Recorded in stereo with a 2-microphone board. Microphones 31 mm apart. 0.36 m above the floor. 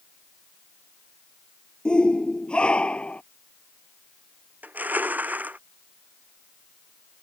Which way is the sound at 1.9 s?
30° left (ahead or behind).